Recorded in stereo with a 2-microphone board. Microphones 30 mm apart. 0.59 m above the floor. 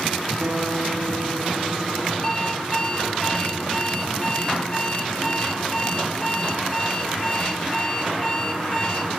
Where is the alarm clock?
20° left (ahead or behind), 4.5 m.